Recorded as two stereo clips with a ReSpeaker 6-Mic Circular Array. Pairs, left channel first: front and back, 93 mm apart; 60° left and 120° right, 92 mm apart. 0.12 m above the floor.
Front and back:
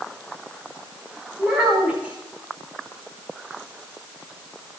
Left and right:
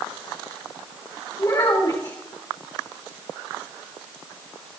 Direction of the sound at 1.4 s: 105° left.